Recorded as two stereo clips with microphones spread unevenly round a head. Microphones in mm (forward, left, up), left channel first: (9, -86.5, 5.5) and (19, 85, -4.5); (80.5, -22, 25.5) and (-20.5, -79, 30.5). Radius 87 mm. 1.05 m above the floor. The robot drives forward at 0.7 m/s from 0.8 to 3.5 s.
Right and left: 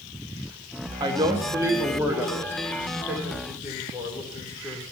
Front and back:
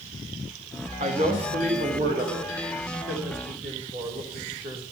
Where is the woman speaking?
155° left, 1.1 m; by 4.8 s 170° left, 3 m.